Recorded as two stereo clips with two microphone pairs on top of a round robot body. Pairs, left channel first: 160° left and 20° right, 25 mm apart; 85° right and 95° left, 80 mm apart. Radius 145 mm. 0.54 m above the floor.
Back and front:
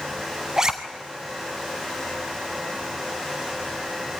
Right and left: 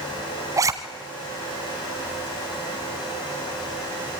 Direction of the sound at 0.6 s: 45° left.